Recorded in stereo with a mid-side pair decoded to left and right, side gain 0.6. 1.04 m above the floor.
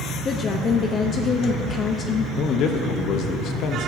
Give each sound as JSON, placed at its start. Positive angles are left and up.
{"t": 0.2, "sound": "a woman speaking", "azimuth_deg": 40, "distance_m": 0.8}
{"t": 2.4, "sound": "a man speaking", "azimuth_deg": 55, "distance_m": 1.0}